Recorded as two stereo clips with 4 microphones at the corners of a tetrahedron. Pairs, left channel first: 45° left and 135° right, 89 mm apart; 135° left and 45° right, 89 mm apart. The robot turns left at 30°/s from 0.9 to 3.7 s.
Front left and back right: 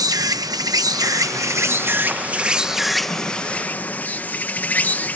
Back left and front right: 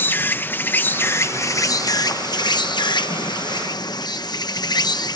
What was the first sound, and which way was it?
An insect, 165° right.